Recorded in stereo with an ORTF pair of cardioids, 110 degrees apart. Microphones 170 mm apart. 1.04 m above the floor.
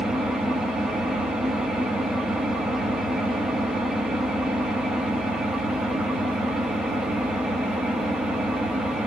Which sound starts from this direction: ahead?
An engine running, at 0.0 s.